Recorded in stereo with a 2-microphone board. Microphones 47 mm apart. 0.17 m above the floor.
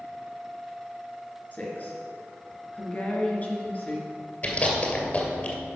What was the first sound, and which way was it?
A woman speaking, 35° left (ahead or behind).